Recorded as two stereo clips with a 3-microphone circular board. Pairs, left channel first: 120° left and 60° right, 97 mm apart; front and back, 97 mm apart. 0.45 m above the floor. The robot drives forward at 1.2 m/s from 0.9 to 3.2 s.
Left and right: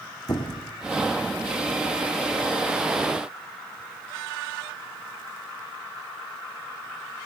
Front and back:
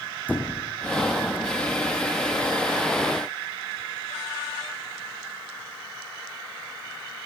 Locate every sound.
0.3 s a squeak: 75° left, 3.5 m